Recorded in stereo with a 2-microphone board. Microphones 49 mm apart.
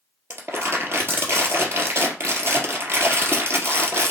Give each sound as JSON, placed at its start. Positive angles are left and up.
{"t": 0.3, "sound": "crumpling", "side_deg": -55, "distance_m": 2.0}